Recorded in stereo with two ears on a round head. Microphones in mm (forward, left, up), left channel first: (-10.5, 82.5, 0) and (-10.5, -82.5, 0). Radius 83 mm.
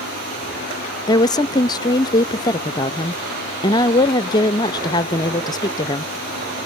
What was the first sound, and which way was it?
A woman speaking, 25° left (ahead or behind).